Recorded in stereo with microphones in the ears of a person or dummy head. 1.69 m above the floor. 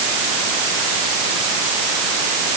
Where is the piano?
I don't hear a piano.